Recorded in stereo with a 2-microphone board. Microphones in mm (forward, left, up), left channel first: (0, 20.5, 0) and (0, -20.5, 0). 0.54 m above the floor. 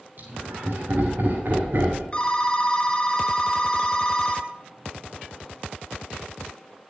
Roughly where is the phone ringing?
Left.